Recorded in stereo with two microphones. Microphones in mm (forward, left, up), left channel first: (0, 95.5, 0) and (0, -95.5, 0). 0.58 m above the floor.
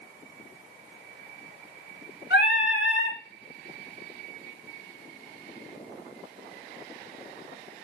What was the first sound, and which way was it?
Singing, 80° left.